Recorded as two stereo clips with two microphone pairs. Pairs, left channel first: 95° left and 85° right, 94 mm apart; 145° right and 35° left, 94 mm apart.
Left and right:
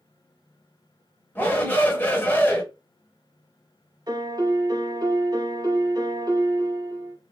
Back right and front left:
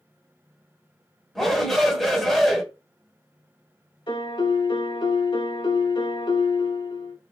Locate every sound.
1.4 s a shout: 130° left, 0.9 m
4.1 s a piano: 125° right, 0.8 m